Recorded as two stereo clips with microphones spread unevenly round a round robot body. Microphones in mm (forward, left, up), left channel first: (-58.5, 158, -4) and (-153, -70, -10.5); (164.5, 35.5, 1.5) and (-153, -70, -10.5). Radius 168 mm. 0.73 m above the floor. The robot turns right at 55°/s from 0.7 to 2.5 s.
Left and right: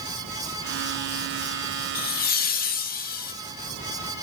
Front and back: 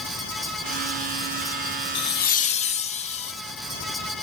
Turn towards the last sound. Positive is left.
turn(degrees=80)